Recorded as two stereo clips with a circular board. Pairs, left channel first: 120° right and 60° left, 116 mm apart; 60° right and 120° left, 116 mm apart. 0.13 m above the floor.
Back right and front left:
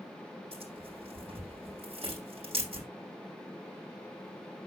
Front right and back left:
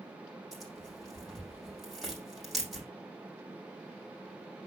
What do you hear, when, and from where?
0.5 s tearing paper: 30° left, 6.5 m